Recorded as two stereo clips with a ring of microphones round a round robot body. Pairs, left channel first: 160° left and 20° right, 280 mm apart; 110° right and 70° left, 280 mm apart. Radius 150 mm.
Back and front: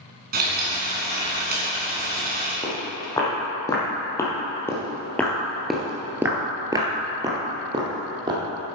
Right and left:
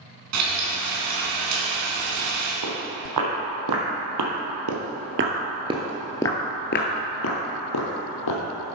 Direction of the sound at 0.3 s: 35° left.